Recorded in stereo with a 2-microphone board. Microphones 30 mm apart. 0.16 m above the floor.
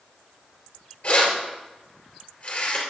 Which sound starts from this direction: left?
Keys jangling, at 1.0 s.